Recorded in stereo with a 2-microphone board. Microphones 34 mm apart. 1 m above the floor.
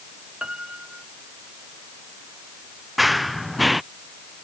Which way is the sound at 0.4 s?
25° right (ahead or behind).